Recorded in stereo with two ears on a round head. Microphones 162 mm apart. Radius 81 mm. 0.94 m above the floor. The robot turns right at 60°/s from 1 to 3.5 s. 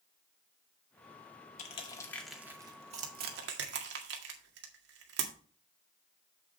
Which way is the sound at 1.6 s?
40° left (ahead or behind).